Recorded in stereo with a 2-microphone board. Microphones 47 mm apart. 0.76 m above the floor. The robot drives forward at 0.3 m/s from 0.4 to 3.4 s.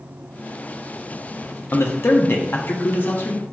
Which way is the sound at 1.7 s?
55° left (ahead or behind).